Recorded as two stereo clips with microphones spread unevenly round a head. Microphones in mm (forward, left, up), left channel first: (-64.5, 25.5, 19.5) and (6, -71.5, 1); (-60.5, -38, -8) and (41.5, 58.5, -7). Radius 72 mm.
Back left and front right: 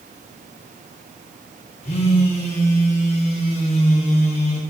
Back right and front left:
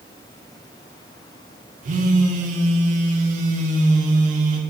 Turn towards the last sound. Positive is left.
turn(degrees=75)